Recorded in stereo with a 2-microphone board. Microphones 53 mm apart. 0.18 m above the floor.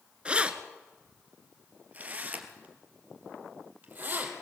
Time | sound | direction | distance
0.2 | keys jangling | 20° right (ahead or behind) | 1.4 m